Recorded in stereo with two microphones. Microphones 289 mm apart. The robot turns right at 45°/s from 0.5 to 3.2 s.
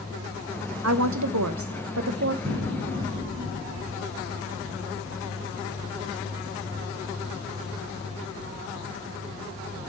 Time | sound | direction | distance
0.8 | a woman speaking | 120° right | 0.9 m
2.5 | an explosion | 50° right | 4.5 m